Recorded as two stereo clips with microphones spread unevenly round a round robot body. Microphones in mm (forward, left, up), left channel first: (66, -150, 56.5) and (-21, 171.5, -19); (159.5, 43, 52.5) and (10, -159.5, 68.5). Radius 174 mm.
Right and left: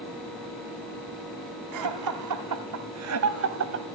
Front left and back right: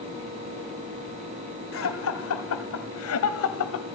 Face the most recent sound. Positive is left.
turn(degrees=60)